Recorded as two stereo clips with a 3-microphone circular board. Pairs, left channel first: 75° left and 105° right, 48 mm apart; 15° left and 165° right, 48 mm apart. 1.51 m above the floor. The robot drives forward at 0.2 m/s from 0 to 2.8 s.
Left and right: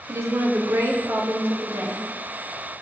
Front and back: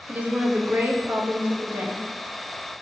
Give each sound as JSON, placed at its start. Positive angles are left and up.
{"t": 0.1, "sound": "a woman speaking", "azimuth_deg": -105, "distance_m": 0.6}